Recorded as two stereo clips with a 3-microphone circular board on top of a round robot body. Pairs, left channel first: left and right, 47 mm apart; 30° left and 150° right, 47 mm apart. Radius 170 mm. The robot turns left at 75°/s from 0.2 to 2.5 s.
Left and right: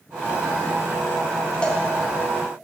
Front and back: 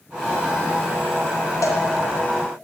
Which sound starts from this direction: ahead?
A cowbell, at 1.6 s.